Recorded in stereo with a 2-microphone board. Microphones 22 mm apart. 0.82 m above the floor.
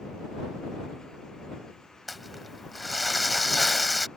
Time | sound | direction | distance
2.1 | crumpling | centre (ahead or behind) | ?